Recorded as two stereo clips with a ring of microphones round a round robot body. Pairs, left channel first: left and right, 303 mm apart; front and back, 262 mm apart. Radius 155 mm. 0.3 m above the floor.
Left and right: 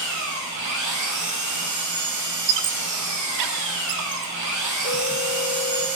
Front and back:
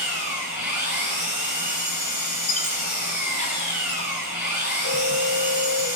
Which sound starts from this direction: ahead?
A phone ringing, at 4.8 s.